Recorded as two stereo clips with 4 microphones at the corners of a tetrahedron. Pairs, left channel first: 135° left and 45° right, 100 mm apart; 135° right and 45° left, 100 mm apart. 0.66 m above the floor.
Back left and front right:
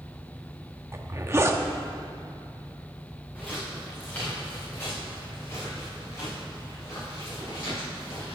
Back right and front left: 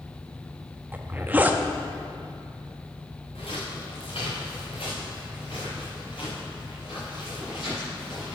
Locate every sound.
0.9 s a zipper: 10° right, 0.6 m
3.4 s footsteps: 145° right, 3.5 m; by 8.3 s 175° right, 7.5 m